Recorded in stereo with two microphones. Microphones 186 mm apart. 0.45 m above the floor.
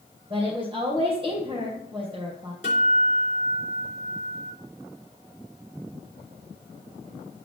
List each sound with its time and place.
0.3 s a woman speaking: 30° right (ahead or behind), 2.5 m
2.6 s a guitar: 45° left (ahead or behind), 3.5 m